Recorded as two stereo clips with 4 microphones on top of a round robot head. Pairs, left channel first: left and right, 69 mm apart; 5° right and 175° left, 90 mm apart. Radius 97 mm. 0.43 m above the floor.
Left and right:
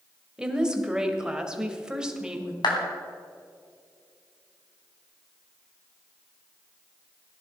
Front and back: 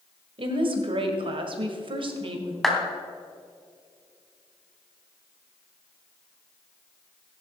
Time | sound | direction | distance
0.4 | a woman speaking | 170° right | 2 m
2.6 | a clap | 85° left | 3 m